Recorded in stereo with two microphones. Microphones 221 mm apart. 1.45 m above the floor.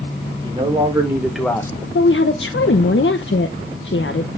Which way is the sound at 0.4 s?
25° right (ahead or behind).